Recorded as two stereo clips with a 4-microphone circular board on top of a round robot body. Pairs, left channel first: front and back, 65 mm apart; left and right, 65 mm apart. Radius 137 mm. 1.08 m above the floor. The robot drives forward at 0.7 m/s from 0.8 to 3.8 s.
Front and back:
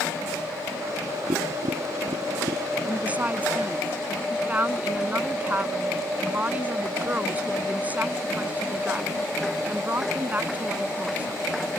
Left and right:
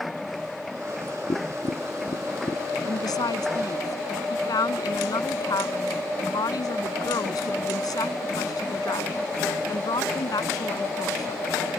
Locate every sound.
1.3 s tapping: 140° left
2.9 s a woman speaking: 110° left; by 11.5 s 115° left